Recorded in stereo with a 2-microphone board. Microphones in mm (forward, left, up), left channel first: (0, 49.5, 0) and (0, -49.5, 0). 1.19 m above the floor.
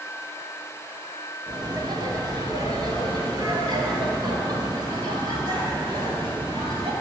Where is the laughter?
50° right (ahead or behind), 2.5 m.